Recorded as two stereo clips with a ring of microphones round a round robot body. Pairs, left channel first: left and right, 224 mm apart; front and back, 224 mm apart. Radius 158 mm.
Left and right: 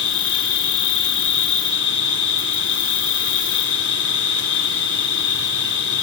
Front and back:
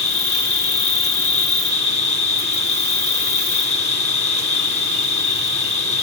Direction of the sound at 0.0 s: 60° left.